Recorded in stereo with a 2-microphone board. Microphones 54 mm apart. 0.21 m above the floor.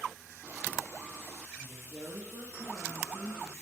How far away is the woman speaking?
About 5 m.